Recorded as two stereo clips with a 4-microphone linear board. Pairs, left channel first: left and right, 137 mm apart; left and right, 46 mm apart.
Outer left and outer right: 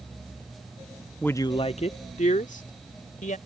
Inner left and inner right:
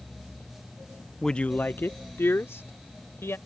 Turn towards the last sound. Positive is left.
turn(degrees=80)